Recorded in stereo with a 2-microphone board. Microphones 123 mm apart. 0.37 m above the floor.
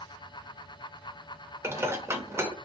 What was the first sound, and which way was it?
Dishes clattering, 20° right (ahead or behind).